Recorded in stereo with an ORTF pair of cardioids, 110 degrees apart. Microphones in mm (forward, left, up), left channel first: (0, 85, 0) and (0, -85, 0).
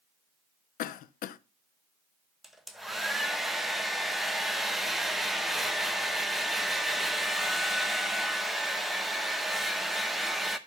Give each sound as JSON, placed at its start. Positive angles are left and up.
{"t": 0.8, "sound": "a cough", "azimuth_deg": 65, "distance_m": 0.6}
{"t": 2.4, "sound": "a hair dryer", "azimuth_deg": 0, "distance_m": 0.8}